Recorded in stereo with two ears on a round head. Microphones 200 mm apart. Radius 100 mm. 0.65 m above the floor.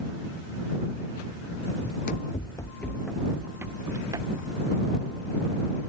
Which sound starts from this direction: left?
Running footsteps, at 1.8 s.